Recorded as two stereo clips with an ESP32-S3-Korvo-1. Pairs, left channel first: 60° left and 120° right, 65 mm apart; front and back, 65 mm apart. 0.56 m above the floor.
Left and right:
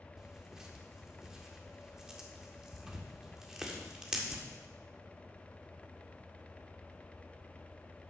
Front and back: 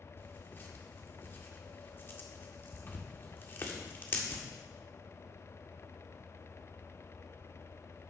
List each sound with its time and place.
0.2 s tearing paper: 40° right, 1.8 m